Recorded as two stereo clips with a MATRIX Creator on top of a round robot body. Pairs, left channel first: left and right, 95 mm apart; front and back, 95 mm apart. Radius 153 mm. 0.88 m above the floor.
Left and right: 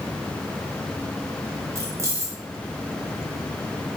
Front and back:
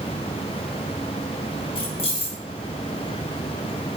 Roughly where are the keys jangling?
Ahead right.